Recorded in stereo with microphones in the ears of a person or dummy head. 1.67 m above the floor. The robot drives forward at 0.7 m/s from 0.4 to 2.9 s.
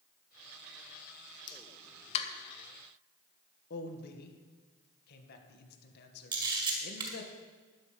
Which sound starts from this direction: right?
A camera shutter, at 6.3 s.